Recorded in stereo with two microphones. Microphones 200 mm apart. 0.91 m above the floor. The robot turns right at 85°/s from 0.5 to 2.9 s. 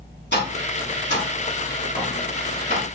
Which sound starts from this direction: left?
Tapping, at 0.3 s.